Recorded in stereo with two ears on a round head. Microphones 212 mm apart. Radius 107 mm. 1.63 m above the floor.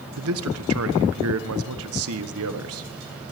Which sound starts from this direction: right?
A man speaking, at 0.2 s.